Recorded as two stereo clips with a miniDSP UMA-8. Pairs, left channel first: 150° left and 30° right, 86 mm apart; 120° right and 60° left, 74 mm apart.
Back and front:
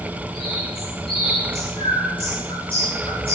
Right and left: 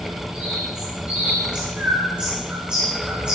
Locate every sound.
0.3 s a bird: 135° left, 10 m